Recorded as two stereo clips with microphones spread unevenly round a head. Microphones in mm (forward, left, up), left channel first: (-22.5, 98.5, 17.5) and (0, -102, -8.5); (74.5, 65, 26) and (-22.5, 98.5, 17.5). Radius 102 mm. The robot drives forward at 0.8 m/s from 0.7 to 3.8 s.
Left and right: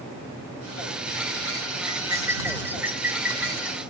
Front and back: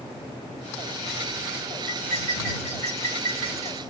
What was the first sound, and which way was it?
Cutlery clinking, 160° right.